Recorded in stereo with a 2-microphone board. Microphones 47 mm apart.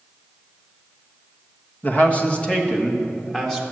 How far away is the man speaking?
About 1.3 m.